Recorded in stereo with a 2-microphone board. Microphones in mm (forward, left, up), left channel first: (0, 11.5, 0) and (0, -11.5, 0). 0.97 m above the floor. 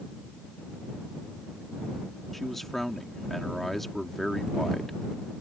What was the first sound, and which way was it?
A man speaking, 10° left (ahead or behind).